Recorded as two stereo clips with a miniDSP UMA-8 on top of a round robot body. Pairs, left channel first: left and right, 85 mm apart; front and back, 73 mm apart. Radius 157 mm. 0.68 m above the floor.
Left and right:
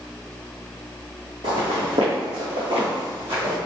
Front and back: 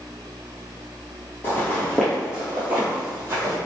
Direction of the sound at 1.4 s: 55° right.